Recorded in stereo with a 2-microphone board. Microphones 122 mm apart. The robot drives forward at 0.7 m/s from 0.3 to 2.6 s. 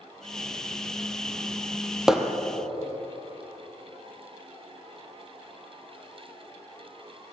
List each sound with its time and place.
2.1 s hammering: 5° right (ahead or behind), 1.7 m